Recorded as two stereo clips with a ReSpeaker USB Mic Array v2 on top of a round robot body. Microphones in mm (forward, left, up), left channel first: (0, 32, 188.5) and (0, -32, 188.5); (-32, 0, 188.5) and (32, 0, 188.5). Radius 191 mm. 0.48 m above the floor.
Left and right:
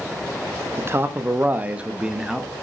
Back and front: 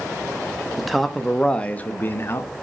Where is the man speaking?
85° right, 1.5 m; by 2.5 s 175° right, 1.5 m.